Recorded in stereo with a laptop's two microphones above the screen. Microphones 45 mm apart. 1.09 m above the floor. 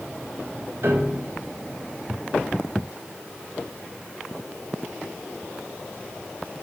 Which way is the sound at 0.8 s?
55° right (ahead or behind).